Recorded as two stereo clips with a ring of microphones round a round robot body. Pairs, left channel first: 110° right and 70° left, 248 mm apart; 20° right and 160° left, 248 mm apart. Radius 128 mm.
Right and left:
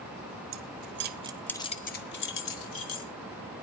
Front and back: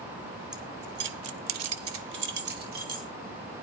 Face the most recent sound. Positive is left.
turn(degrees=-145)